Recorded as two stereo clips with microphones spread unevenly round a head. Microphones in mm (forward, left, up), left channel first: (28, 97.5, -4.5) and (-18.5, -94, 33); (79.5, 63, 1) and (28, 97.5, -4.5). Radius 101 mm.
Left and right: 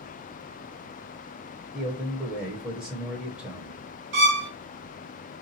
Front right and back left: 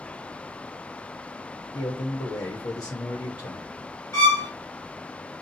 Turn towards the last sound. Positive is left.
turn(degrees=-95)